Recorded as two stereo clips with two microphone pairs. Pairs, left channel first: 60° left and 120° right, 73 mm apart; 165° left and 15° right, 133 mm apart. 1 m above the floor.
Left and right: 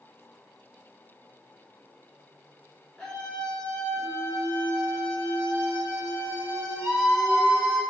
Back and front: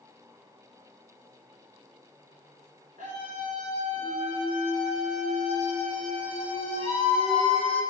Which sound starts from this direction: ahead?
A scream, at 3.0 s.